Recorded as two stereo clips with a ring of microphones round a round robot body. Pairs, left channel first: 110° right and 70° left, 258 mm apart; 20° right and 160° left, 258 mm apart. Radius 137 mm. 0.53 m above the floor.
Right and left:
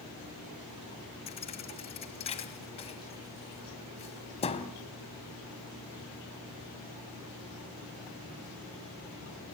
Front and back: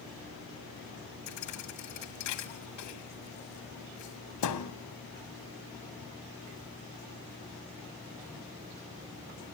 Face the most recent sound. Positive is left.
turn(degrees=-45)